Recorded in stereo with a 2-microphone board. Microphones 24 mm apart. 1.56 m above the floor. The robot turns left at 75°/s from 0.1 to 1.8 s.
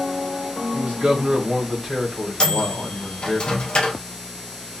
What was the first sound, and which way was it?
A man speaking, 80° right.